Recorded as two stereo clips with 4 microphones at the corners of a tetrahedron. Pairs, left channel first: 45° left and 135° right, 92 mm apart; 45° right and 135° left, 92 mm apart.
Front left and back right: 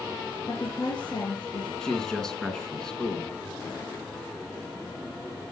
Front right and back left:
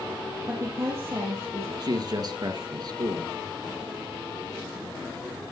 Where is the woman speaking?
80° left, 3 m.